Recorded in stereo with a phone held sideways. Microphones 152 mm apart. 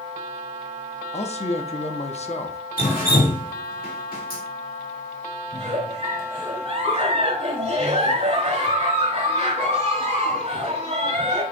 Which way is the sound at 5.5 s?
45° right (ahead or behind).